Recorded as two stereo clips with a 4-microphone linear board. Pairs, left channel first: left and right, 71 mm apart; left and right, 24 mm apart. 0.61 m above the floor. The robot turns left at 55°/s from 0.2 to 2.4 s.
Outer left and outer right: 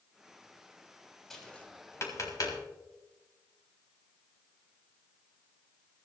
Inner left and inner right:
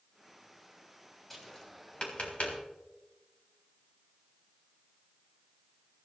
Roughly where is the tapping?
Centre.